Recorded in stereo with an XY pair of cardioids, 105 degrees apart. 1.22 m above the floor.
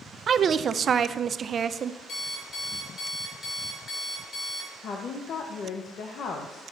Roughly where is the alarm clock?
Ahead left.